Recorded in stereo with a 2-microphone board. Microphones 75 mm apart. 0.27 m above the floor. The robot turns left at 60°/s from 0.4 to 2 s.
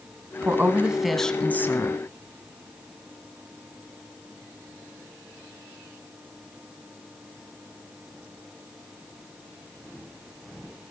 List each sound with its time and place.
0.4 s a woman speaking: 140° right, 2.0 m; by 2.0 s 125° left, 2.0 m